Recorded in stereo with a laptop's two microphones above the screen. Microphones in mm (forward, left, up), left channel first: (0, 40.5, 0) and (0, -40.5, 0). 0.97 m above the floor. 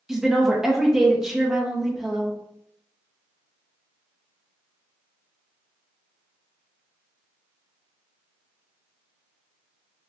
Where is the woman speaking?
5° right (ahead or behind), 0.8 m.